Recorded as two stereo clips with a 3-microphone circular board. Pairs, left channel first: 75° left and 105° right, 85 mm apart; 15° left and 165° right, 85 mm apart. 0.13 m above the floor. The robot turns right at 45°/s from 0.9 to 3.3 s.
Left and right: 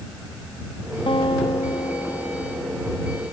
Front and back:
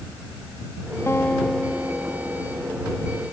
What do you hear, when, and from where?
1.1 s a guitar: 80° left; by 3.2 s 175° left